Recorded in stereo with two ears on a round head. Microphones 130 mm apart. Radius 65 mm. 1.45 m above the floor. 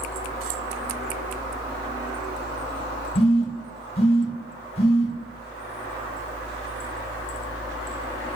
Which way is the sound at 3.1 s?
40° left (ahead or behind).